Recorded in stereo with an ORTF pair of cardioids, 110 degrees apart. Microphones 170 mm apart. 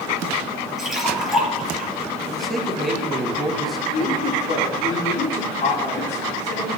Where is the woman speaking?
40° left, 4 m.